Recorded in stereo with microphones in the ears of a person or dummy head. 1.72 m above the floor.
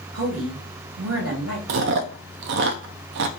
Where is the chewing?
55° right (ahead or behind), 0.5 m.